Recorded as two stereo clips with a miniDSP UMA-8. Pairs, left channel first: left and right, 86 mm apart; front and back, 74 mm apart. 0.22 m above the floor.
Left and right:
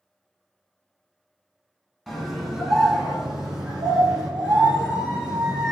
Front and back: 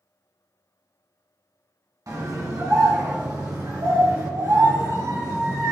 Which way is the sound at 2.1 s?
Straight behind.